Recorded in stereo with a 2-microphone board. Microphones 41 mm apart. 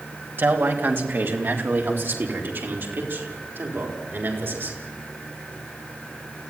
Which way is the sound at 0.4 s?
60° right (ahead or behind).